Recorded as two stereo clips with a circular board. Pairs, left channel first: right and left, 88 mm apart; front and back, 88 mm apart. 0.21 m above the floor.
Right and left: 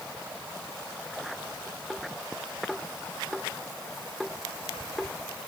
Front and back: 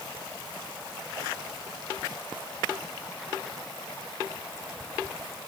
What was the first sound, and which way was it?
Only background noise.